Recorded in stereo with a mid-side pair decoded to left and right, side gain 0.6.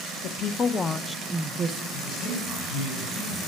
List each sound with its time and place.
0.2 s a woman speaking: 55° left, 0.8 m; by 1.8 s 45° right, 0.7 m
1.9 s a man speaking: 70° left, 4.5 m